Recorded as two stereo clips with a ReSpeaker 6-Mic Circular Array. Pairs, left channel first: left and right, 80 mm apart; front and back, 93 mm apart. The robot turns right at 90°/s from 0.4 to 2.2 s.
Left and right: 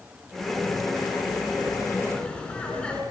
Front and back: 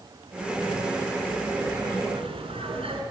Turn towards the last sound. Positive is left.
turn(degrees=170)